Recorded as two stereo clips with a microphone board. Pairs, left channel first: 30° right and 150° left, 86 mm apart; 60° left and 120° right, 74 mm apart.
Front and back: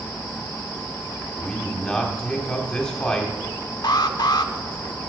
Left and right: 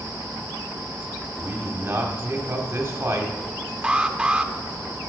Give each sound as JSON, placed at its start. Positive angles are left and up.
{"t": 1.2, "sound": "a man speaking", "azimuth_deg": -110, "distance_m": 1.6}
{"t": 3.8, "sound": "an alarm", "azimuth_deg": -45, "distance_m": 0.5}